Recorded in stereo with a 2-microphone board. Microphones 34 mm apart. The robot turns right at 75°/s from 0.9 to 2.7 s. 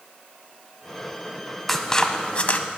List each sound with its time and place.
1.7 s scissors: 5° left (ahead or behind), 0.7 m; by 2.6 s 40° left (ahead or behind), 0.7 m